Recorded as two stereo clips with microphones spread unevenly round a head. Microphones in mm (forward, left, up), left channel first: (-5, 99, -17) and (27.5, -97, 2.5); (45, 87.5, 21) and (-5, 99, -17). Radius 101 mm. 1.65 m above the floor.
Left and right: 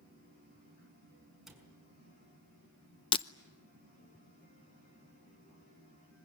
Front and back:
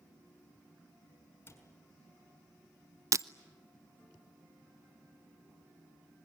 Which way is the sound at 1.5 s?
5° left.